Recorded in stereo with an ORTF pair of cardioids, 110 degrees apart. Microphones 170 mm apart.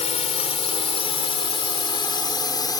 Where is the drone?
40° left; by 2.8 s 25° left.